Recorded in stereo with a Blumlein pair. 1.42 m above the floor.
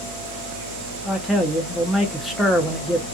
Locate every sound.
1.1 s a man speaking: 5° left, 0.7 m